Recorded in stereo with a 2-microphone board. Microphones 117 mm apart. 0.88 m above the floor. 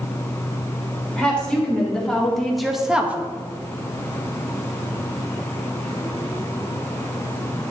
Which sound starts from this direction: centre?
A woman speaking, at 1.2 s.